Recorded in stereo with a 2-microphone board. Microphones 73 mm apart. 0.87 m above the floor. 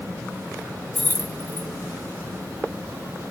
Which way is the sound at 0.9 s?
25° left (ahead or behind).